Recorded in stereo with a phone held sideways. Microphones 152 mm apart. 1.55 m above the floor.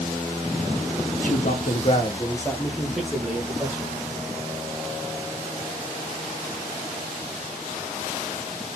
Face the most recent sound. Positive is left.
turn(degrees=-20)  # may be behind; listen again after turning